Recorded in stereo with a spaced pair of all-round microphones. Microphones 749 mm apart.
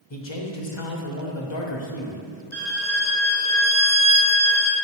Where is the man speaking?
40° left (ahead or behind), 1.0 m.